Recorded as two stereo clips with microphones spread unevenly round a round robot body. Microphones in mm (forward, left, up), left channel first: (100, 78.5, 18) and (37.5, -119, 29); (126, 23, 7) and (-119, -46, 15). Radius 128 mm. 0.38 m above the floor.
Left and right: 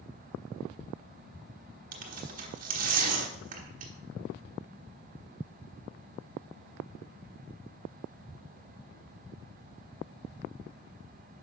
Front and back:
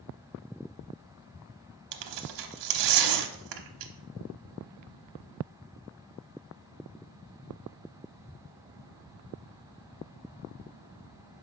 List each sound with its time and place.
1.9 s tearing paper: 165° right, 0.8 m